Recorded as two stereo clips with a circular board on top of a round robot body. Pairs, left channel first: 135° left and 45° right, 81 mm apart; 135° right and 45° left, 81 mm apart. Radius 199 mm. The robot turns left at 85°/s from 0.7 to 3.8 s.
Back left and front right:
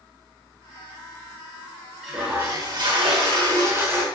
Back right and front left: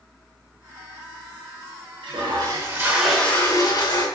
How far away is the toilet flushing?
About 6.5 m.